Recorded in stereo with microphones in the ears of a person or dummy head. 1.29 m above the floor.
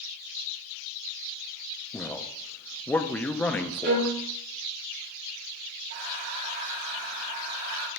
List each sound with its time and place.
1.9 s a man speaking: 5° left (ahead or behind), 0.5 m
3.8 s a violin: 55° right (ahead or behind), 1.8 m
5.9 s breathing: 40° right (ahead or behind), 1.1 m